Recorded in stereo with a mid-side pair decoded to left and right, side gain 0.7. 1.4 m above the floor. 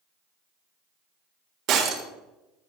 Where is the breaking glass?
50° right, 1.8 m.